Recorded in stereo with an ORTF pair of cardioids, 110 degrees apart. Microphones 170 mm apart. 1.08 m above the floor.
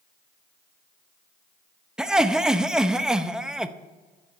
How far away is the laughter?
About 0.8 m.